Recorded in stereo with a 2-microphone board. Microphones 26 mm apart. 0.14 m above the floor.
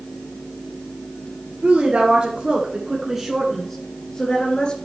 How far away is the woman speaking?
About 2.5 m.